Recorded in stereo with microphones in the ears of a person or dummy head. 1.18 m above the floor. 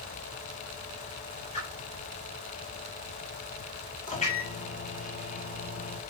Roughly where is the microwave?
Left.